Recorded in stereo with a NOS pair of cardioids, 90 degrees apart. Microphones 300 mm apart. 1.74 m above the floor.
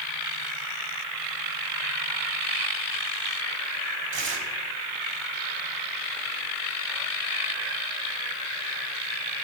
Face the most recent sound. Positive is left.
turn(degrees=-40)